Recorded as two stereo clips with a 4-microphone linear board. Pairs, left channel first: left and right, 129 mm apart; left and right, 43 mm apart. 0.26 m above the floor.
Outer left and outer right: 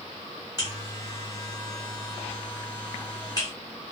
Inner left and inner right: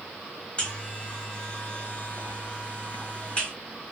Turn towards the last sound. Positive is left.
turn(degrees=30)  # may be behind; listen again after turning